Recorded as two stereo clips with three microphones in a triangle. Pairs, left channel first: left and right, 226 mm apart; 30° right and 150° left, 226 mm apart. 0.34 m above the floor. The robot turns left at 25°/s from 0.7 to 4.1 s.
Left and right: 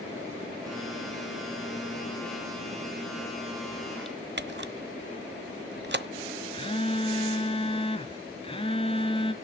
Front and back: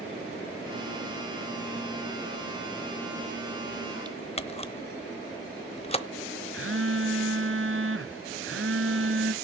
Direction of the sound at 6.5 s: 150° left.